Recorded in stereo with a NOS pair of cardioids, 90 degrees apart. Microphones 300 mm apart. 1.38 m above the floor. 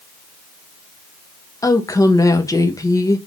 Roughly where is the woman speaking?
Ahead.